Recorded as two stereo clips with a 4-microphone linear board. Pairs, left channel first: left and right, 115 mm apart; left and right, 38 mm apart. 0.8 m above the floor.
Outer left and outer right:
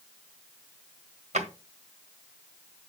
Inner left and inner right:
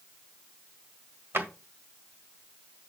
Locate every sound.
1.3 s a drawer: 85° right, 1.7 m